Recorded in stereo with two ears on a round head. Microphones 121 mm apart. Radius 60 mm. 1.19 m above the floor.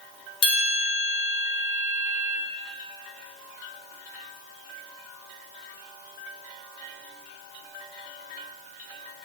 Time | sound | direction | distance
0.4 | a bell | 40° left (ahead or behind) | 0.7 m